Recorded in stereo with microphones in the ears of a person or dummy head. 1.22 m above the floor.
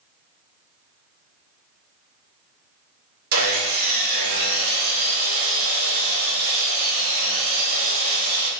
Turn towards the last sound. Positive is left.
turn(degrees=-55)  # may be behind; listen again after turning